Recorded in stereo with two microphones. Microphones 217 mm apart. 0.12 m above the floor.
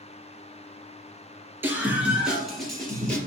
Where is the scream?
10° right (ahead or behind), 2.5 m; by 3.2 s 5° left (ahead or behind), 3 m.